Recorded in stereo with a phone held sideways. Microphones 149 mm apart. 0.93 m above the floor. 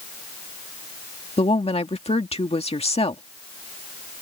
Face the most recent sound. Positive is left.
turn(degrees=45)  # may be behind; listen again after turning